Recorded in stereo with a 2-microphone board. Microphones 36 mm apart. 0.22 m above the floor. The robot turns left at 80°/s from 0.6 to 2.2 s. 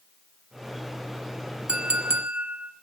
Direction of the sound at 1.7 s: 40° right.